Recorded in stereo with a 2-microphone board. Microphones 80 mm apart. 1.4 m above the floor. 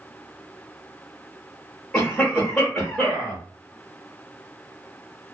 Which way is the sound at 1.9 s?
15° left (ahead or behind).